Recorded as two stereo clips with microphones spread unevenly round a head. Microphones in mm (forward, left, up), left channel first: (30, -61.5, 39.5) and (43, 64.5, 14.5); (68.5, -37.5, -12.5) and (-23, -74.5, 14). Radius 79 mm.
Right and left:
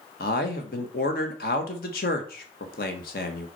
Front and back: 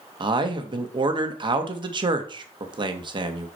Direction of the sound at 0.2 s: 120° right.